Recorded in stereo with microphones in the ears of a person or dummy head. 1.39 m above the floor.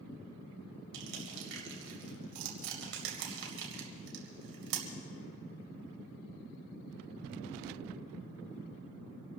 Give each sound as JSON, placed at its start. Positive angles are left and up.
{"t": 0.9, "sound": "crushing", "side_deg": -70, "distance_m": 2.5}